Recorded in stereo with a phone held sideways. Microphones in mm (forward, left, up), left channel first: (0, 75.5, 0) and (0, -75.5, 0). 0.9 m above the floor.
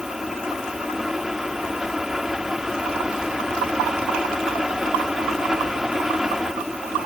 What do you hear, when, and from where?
0.0 s a fan: 5° right (ahead or behind)